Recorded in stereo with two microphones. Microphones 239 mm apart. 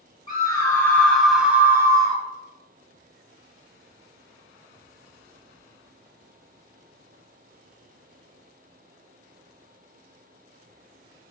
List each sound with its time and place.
0.3 s a scream: 20° left (ahead or behind), 1.4 m; by 2.2 s 20° right (ahead or behind), 1.4 m